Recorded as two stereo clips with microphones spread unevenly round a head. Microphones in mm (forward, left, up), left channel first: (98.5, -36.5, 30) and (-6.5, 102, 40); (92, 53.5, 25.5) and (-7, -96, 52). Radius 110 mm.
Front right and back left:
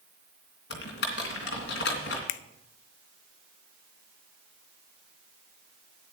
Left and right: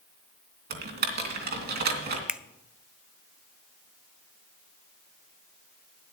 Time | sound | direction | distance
0.7 | typing on a keyboard | 95° right | 2.5 m
2.3 | a finger snap | 40° right | 0.6 m